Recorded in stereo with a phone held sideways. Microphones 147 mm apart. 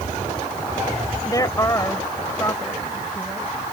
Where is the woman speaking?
25° left (ahead or behind); by 3.5 s 15° left (ahead or behind).